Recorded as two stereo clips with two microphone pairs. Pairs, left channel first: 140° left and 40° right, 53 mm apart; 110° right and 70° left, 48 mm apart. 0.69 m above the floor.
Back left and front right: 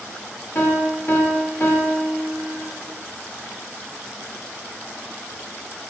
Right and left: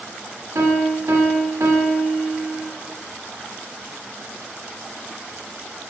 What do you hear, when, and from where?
0.6 s a piano: 85° left, 0.5 m